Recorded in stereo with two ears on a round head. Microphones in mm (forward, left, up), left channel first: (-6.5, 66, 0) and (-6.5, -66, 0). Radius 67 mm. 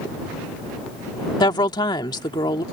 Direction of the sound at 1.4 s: 30° left (ahead or behind).